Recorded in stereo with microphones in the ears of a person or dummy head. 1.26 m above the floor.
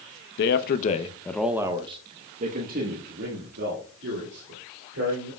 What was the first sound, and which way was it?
A man speaking, 65° left (ahead or behind).